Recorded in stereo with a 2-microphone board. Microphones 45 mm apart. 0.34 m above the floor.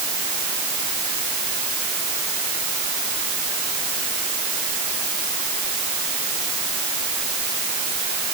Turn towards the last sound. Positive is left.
No sound to turn to.